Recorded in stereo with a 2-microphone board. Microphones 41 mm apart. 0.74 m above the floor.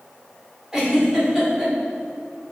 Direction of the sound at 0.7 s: 10° right (ahead or behind).